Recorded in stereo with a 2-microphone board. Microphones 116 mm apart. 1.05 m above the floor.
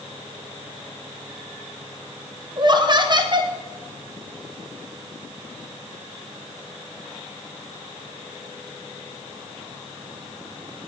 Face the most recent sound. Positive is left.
turn(degrees=-40)  # may be behind; listen again after turning